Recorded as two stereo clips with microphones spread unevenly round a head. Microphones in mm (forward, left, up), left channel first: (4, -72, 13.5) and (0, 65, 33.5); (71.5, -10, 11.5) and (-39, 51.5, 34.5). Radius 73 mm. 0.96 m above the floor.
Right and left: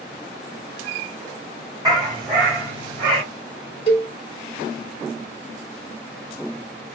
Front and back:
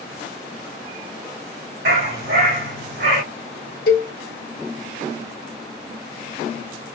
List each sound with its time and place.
1.9 s a dog barking: 155° left, 3 m; by 3.2 s 145° left, 4.5 m
3.9 s a cowbell: 35° right, 1.4 m